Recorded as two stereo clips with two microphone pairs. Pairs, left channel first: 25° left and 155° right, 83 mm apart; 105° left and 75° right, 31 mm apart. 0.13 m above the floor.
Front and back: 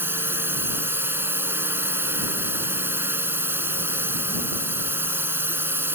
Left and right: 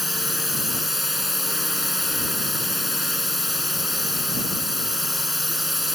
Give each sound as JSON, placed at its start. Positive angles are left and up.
{"t": 0.0, "sound": "a drone", "azimuth_deg": -155}